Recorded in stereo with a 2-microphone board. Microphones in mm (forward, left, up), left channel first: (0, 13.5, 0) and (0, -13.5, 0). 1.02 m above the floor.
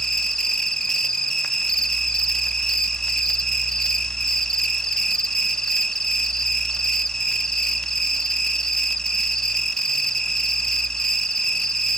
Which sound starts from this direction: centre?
An insect, at 0.0 s.